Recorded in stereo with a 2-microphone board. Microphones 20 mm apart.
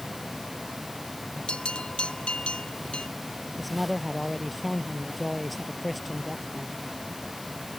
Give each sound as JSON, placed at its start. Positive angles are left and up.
{"t": 1.5, "sound": "a bell", "side_deg": 70}
{"t": 3.6, "sound": "a man speaking", "side_deg": 0}